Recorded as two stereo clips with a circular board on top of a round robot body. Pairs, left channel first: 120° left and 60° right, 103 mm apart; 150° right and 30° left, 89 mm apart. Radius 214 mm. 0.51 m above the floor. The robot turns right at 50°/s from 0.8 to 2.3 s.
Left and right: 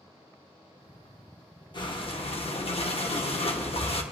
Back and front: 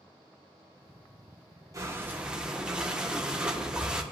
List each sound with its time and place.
1.7 s breathing: 80° left, 1.7 m; by 4.0 s 110° left, 1.7 m